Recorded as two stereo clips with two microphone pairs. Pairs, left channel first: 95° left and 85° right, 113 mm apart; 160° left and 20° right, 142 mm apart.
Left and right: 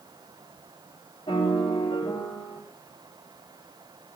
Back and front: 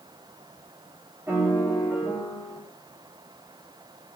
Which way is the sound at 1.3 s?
55° left.